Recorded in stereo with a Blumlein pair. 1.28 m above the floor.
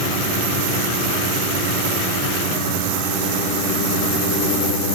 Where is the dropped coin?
No dropped coin in this recording.